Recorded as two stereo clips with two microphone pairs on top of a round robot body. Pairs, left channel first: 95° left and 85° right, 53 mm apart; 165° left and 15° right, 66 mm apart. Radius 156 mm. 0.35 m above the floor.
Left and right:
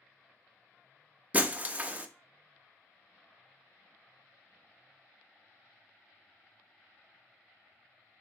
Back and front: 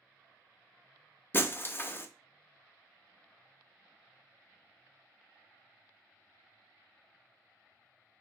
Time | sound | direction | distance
1.3 | breaking glass | 140° right | 0.6 m